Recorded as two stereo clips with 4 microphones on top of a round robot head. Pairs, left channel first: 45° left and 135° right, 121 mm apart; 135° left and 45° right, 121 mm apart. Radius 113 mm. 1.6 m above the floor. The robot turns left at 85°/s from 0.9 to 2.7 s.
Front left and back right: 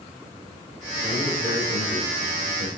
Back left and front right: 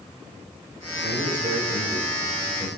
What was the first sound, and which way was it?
A man speaking, 40° right.